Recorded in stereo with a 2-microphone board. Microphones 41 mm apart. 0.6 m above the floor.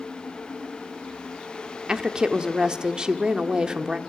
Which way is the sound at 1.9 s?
20° right (ahead or behind).